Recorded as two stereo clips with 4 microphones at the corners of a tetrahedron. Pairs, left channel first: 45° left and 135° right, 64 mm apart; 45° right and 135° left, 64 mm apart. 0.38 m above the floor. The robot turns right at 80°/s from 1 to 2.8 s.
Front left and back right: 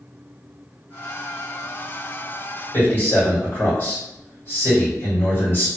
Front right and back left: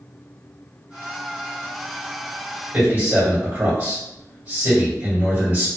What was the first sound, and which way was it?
A man speaking, 80° left.